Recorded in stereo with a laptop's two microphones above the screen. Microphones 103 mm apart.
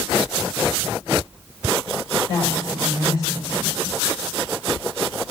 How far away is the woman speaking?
About 5.5 m.